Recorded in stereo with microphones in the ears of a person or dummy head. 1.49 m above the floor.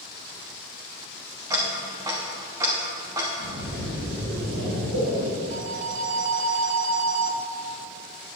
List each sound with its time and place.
1.5 s ticking: 15° right (ahead or behind), 1.1 m
3.4 s a splash: 85° right, 3 m
5.5 s a phone ringing: 50° right (ahead or behind), 0.5 m